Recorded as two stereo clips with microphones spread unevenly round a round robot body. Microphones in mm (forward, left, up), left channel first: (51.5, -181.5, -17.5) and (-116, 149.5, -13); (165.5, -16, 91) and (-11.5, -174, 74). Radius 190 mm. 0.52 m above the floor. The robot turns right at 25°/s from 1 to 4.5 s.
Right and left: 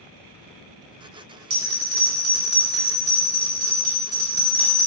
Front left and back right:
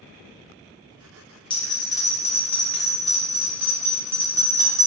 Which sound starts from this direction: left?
A bell, at 1.5 s.